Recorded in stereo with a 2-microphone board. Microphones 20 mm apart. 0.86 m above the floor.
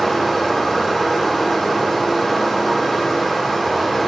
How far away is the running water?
About 7 m.